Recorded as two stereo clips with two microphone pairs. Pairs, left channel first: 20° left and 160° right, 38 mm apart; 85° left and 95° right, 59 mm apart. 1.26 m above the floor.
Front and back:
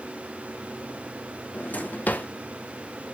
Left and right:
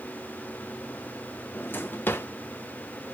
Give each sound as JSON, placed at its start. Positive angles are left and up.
{"t": 1.5, "sound": "a drawer", "azimuth_deg": 35, "distance_m": 0.6}